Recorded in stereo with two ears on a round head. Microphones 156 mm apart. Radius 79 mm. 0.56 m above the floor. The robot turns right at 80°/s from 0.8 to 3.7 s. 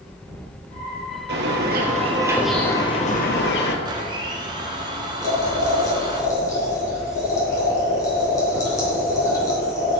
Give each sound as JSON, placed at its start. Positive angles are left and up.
{"t": 1.3, "sound": "a bird", "azimuth_deg": -95, "distance_m": 1.9}
{"t": 3.9, "sound": "a blender", "side_deg": -25, "distance_m": 1.9}
{"t": 5.2, "sound": "boiling", "side_deg": 20, "distance_m": 4.5}